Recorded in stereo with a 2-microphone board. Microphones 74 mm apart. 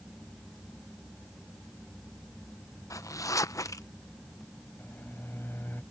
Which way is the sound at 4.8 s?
30° left (ahead or behind).